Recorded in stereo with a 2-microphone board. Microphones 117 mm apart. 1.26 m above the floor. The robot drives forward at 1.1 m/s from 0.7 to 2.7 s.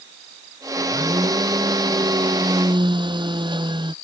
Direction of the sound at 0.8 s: 35° right (ahead or behind).